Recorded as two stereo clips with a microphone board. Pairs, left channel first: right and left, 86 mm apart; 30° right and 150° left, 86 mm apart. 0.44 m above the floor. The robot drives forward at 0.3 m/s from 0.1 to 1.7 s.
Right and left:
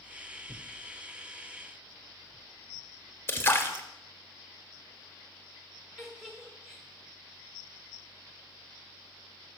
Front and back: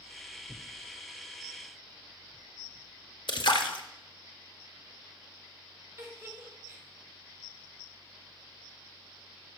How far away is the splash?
About 0.7 m.